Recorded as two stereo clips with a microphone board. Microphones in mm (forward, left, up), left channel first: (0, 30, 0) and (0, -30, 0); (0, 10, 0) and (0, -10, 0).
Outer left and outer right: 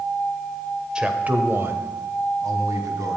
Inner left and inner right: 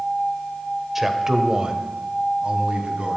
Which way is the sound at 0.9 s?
15° right (ahead or behind).